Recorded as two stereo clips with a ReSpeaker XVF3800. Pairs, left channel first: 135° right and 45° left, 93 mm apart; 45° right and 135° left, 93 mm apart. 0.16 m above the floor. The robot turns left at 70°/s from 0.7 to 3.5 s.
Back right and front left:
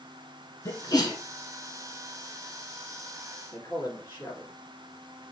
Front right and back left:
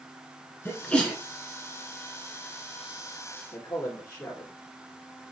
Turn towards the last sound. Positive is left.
turn(degrees=-85)